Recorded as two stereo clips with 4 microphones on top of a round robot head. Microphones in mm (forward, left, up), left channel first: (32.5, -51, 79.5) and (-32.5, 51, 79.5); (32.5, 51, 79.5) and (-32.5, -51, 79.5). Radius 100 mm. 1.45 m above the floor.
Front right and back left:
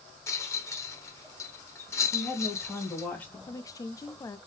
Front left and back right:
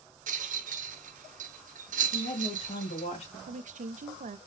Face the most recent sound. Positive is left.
turn(degrees=-120)